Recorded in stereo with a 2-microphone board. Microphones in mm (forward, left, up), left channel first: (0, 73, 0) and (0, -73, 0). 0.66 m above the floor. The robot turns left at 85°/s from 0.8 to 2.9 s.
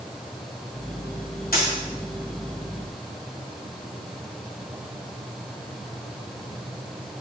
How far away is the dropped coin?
About 1.5 m.